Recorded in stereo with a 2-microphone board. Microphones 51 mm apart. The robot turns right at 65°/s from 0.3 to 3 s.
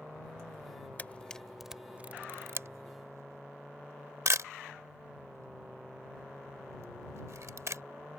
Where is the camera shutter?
35° left (ahead or behind); by 7.8 s 65° right (ahead or behind).